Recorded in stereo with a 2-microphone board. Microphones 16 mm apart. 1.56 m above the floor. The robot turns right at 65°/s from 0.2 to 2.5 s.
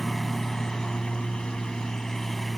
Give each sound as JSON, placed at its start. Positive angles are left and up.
{"t": 0.0, "sound": "a lawn mower", "azimuth_deg": 20}